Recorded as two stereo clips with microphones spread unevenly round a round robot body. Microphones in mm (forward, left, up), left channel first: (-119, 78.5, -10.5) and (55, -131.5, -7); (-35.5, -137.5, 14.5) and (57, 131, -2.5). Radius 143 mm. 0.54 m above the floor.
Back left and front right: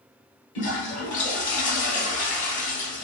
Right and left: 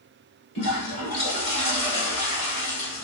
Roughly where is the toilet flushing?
Behind.